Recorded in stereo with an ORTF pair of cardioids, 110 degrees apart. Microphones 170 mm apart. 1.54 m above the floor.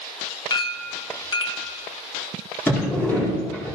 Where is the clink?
30° left, 1.3 m.